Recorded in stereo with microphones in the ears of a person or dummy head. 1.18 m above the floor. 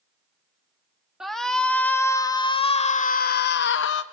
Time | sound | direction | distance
1.2 | a shout | centre (ahead or behind) | 1.7 m